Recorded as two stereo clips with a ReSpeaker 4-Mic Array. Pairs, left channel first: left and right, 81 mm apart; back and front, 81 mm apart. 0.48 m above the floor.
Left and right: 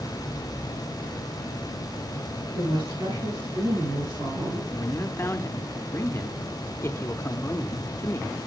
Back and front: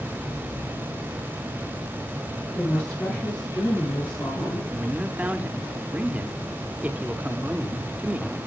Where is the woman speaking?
105° right, 7.5 m; by 4.6 s 110° right, 6 m.